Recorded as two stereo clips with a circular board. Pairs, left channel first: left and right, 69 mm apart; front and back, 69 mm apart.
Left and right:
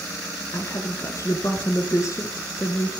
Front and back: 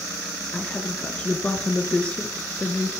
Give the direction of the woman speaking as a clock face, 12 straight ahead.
10 o'clock.